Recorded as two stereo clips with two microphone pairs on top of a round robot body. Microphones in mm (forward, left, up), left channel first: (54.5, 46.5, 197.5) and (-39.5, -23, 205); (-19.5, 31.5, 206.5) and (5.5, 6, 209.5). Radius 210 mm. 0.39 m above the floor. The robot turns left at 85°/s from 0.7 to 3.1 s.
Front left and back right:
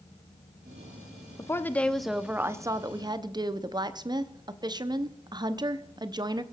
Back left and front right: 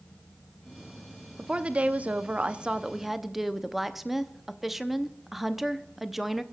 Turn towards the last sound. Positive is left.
turn(degrees=-140)